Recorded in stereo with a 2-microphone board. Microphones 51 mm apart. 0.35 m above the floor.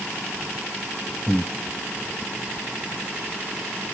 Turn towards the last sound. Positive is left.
turn(degrees=35)  # may be behind; listen again after turning